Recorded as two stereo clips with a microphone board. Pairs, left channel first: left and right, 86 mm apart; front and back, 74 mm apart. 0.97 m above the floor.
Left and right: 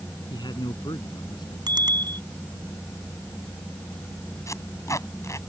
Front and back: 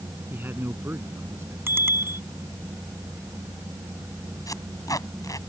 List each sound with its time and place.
0.3 s a man speaking: 115° left; by 1.6 s 125° left
1.7 s a bicycle bell: 120° right
4.5 s tape being pulled: 40° left